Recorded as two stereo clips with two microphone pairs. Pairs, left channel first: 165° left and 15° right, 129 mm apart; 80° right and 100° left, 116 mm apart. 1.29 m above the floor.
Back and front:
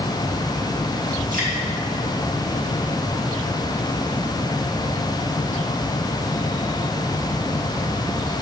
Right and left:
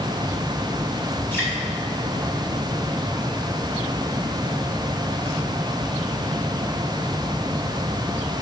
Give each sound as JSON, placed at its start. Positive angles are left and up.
{"t": 1.3, "sound": "dripping", "azimuth_deg": -5, "distance_m": 2.0}